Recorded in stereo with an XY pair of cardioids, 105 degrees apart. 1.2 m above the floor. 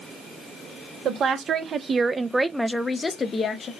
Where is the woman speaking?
60° right, 1.2 m; by 3.7 s 50° left, 0.9 m.